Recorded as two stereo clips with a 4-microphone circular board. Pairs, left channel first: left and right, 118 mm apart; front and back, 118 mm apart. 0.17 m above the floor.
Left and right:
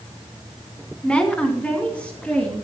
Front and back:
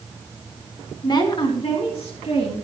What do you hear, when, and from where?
1.0 s a woman speaking: 15° left, 1.7 m; by 2.5 s 10° left, 3.5 m